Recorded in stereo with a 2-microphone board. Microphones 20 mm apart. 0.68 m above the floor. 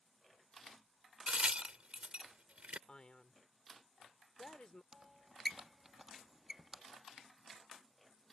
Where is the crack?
70° right (ahead or behind).